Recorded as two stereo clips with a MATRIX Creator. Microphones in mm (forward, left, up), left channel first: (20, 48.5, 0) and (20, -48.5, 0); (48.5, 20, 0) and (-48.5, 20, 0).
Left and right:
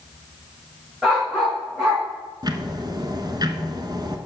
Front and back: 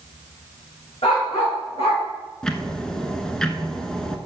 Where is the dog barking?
10° right, 4.5 m; by 2.0 s 5° right, 4 m.